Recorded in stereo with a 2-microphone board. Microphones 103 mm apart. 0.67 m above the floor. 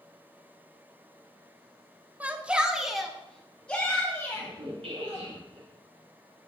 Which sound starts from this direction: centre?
A shout, at 2.2 s.